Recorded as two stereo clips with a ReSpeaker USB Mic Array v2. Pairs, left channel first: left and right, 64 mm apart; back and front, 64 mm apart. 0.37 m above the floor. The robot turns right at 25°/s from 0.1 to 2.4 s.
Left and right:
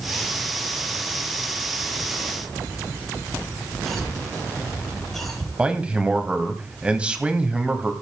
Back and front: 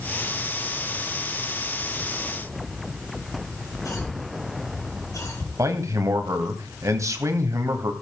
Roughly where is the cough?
Behind.